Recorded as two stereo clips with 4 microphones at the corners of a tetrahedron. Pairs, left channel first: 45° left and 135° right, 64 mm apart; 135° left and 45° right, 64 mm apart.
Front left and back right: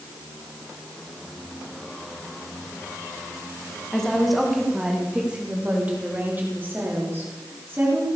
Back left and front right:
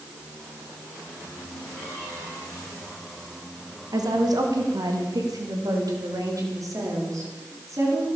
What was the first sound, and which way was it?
A woman speaking, 35° right.